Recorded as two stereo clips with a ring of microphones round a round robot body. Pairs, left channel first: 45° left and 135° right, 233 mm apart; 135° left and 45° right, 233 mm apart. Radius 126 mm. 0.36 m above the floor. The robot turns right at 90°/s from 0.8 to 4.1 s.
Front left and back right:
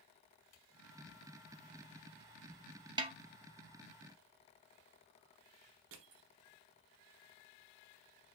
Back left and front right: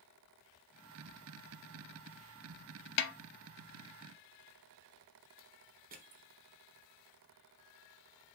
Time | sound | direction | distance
3.0 | a snare drum | 155° left | 0.6 m
5.9 | crushing | 100° right | 0.9 m